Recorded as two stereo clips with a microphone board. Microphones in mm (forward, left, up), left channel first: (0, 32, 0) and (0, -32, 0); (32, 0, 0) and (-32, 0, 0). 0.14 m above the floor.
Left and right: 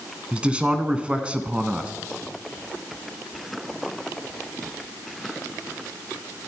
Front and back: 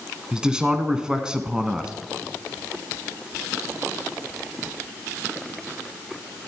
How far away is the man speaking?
About 1.5 m.